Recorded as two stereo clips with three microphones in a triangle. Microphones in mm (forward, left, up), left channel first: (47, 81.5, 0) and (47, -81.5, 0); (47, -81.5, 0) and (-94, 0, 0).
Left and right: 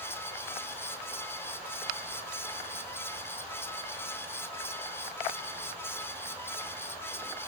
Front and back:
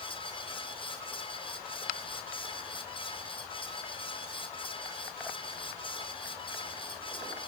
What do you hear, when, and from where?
Only background noise.